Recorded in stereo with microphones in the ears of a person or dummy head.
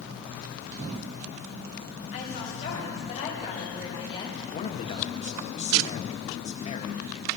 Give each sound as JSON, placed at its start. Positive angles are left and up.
{"t": 2.1, "sound": "a woman speaking", "side_deg": 45, "distance_m": 6.0}
{"t": 4.5, "sound": "a man speaking", "side_deg": 30, "distance_m": 1.3}